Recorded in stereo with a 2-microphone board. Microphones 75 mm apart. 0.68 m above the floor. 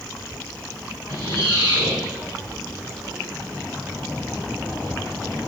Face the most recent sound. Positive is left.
turn(degrees=-75)  # may be behind; listen again after turning